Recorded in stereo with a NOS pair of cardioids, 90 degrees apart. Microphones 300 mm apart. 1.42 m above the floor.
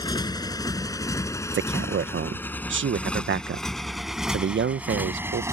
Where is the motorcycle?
15° left; by 5.5 s 10° right.